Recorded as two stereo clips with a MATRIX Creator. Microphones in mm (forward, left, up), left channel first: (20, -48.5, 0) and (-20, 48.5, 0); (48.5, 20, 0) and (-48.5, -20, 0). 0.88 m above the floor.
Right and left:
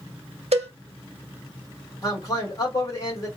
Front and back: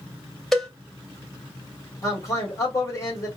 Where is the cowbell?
110° left, 0.7 m.